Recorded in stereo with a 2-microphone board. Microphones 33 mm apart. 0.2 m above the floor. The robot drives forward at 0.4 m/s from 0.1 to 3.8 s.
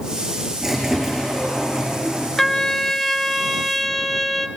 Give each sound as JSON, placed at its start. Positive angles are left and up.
{"t": 0.6, "sound": "a squeak", "side_deg": -10, "distance_m": 7.5}
{"t": 2.4, "sound": "a trumpet", "side_deg": 10, "distance_m": 0.5}